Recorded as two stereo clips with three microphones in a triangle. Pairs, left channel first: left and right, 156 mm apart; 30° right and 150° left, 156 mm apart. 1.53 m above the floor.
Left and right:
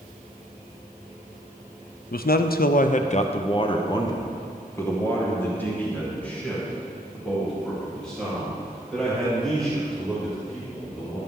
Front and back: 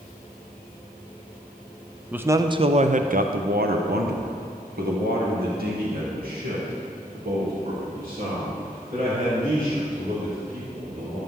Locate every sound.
2.1 s a man speaking: 70° left, 0.6 m; by 11.2 s 175° left, 5 m